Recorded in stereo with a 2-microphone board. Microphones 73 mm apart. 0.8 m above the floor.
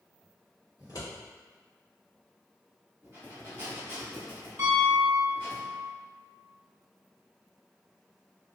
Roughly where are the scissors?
Left.